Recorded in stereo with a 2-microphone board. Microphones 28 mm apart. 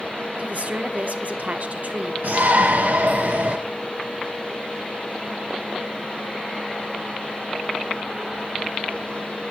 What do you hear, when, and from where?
0.4 s a woman speaking: 50° right (ahead or behind), 1.2 m
2.2 s a shout: 65° right (ahead or behind), 0.9 m